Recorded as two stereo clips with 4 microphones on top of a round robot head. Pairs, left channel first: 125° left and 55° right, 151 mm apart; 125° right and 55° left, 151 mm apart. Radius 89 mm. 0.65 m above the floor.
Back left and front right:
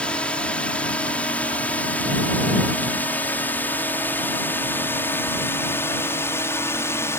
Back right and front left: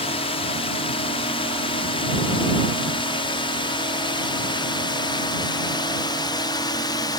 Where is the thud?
No thud in this recording.